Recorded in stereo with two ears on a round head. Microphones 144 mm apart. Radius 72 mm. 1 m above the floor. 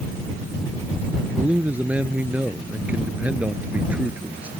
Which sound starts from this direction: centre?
A man speaking, at 1.4 s.